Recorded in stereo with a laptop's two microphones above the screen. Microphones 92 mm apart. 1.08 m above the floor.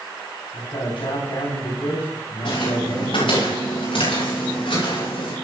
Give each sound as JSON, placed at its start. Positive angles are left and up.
{"t": 0.5, "sound": "a man speaking", "side_deg": 85, "distance_m": 9.0}
{"t": 2.5, "sound": "footsteps", "side_deg": 70, "distance_m": 7.0}